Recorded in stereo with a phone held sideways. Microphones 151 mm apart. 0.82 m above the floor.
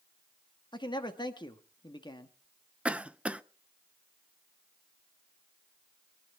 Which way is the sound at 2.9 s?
10° right (ahead or behind).